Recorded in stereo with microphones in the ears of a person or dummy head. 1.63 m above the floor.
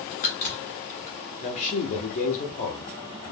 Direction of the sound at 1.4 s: 40° left (ahead or behind).